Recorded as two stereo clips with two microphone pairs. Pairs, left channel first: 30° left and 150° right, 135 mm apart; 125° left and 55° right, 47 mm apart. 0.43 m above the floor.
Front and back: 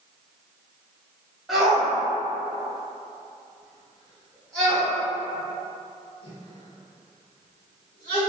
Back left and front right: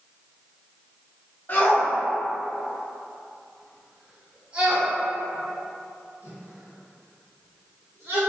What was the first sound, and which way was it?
A shout, 125° left.